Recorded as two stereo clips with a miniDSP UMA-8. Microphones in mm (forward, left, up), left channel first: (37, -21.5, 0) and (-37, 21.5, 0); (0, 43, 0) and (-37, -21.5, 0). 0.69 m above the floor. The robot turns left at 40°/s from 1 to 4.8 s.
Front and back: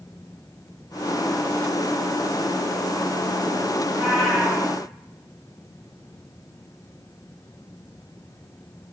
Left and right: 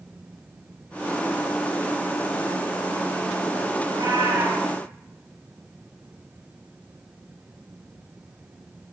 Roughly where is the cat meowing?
Right.